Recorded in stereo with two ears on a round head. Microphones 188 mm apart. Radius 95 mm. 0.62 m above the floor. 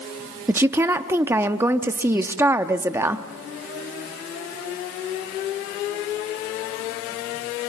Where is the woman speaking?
10° right (ahead or behind), 0.7 m.